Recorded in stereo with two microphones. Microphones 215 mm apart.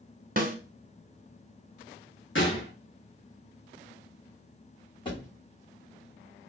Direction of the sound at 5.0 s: 20° left (ahead or behind).